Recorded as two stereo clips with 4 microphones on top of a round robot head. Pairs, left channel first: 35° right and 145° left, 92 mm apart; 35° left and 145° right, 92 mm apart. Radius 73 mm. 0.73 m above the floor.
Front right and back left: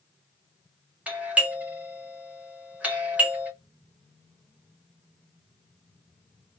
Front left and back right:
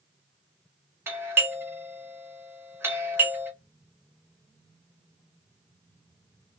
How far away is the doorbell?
About 1.1 m.